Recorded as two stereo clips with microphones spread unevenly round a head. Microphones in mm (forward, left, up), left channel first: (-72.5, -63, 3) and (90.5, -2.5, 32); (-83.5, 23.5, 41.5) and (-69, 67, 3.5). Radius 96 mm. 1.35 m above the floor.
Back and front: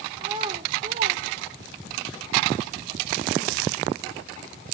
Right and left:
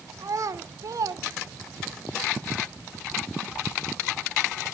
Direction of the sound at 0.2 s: 90° left.